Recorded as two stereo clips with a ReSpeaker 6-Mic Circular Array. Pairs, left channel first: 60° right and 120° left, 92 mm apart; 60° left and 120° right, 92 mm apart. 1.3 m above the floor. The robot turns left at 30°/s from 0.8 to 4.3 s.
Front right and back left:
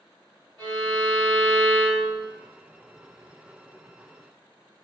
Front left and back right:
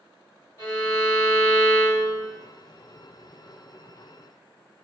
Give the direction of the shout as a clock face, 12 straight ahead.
I don't hear a shout.